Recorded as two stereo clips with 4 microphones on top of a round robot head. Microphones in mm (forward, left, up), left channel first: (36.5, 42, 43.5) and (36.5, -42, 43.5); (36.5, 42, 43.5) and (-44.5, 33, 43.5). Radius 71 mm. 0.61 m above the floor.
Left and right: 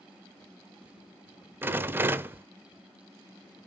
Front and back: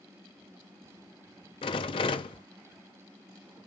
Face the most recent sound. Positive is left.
turn(degrees=-25)